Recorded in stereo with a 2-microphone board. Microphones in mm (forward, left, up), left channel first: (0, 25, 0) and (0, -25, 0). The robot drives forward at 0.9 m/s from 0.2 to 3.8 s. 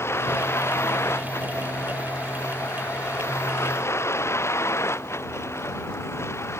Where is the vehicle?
60° left (ahead or behind).